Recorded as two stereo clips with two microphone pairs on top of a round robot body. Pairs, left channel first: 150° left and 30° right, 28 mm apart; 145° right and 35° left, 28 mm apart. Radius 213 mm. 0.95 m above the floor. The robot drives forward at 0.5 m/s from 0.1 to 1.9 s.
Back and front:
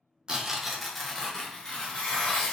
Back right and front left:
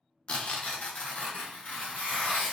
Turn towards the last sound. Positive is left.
turn(degrees=-150)